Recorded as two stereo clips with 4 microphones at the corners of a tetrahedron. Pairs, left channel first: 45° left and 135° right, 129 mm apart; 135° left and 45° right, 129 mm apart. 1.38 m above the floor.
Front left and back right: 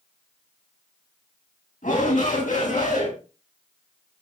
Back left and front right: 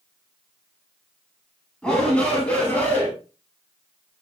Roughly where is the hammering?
No hammering in this recording.